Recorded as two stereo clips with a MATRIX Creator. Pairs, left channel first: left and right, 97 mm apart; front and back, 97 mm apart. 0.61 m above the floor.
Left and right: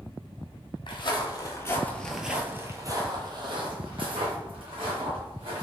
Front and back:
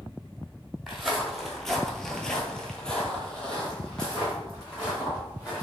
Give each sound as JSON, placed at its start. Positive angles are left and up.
{"t": 0.9, "sound": "footsteps", "azimuth_deg": 90, "distance_m": 0.9}